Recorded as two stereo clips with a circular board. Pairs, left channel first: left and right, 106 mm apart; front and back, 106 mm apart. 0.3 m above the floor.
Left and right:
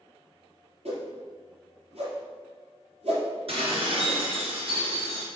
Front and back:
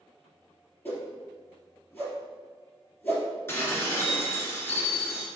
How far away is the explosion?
No explosion in this recording.